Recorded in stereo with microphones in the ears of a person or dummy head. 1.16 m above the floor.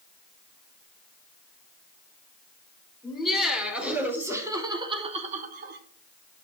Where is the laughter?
Centre (ahead or behind), 4.5 m; by 5.8 s 60° right (ahead or behind), 2 m.